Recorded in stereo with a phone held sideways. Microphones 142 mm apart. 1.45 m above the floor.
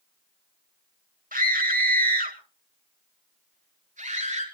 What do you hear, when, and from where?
1.3 s a scream: 75° right (ahead or behind), 2 m; by 4.4 s 60° right (ahead or behind), 4.5 m